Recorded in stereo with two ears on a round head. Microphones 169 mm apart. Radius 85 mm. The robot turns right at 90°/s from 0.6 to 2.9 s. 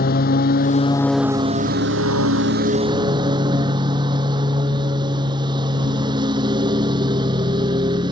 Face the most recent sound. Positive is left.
turn(degrees=-25)